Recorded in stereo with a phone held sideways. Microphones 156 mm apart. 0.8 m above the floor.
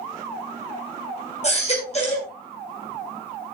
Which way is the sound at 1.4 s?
45° left (ahead or behind).